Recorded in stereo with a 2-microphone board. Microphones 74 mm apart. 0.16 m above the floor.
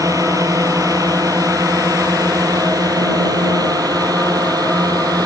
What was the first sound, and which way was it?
A drone, 50° right (ahead or behind).